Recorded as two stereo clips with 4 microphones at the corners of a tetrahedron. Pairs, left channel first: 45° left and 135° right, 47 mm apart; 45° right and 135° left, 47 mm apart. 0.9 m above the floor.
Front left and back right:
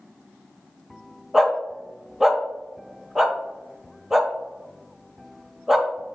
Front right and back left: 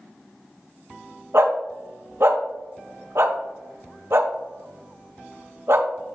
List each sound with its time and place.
1.3 s a dog barking: 145° left, 1.1 m